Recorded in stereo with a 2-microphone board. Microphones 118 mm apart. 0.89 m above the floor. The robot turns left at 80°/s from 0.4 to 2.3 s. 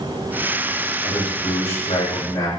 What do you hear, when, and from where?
1.0 s a man speaking: 135° left, 3.5 m; by 2.5 s 35° left, 3.5 m